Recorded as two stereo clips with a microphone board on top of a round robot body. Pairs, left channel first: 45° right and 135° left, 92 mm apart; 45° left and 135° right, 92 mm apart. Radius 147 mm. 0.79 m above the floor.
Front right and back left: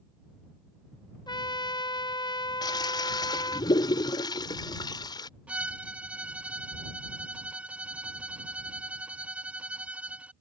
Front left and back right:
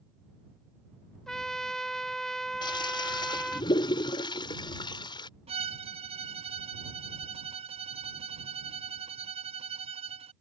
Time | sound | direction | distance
1.3 | a trumpet | 40° right | ?
2.6 | a toilet flushing | 5° left | ?
5.5 | a violin | 145° right | ?